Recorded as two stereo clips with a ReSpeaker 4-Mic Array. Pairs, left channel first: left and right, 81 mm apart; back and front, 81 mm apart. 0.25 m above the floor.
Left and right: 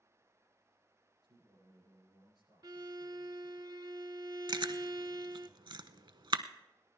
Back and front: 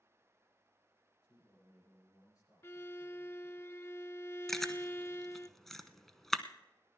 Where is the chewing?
95° right, 0.7 m.